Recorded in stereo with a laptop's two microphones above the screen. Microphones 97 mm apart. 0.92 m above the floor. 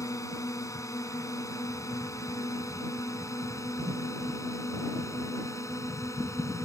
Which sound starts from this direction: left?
A drone, at 0.0 s.